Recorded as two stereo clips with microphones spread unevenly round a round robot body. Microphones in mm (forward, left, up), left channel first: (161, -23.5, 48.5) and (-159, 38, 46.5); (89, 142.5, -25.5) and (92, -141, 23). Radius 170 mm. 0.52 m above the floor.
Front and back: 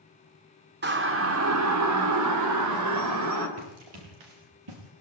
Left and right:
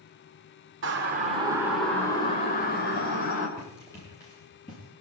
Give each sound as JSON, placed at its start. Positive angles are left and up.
{"t": 0.8, "sound": "a siren", "azimuth_deg": -140, "distance_m": 2.5}
{"t": 3.6, "sound": "running footsteps", "azimuth_deg": 175, "distance_m": 9.5}